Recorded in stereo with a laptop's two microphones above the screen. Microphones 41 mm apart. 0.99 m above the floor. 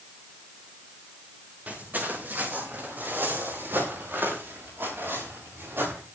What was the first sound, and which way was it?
Footsteps, 45° right (ahead or behind).